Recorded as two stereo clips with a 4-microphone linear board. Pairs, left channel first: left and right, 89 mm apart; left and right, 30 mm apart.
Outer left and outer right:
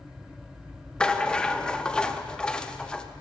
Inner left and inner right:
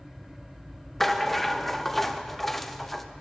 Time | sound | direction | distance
1.0 | a rattle | 10° left (ahead or behind) | 0.5 m